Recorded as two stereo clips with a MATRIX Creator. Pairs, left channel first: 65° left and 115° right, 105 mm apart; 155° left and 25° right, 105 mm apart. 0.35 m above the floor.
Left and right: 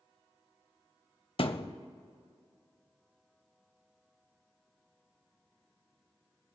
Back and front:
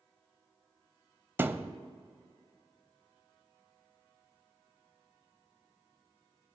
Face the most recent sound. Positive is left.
turn(degrees=45)